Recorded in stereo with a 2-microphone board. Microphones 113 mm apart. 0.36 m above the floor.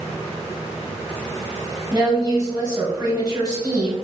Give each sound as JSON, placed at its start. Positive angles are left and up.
{"t": 1.9, "sound": "a woman speaking", "side_deg": -30, "distance_m": 1.5}